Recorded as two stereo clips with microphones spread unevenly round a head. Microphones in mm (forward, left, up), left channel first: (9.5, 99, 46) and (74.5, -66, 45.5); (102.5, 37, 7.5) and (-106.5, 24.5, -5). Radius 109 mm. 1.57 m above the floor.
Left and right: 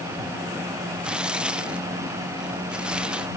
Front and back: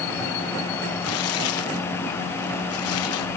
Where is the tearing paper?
15° left.